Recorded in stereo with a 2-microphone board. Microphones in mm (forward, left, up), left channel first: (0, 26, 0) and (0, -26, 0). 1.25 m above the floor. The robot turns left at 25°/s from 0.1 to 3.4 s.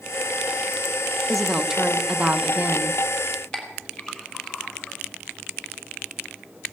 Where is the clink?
15° left (ahead or behind), 3.5 m.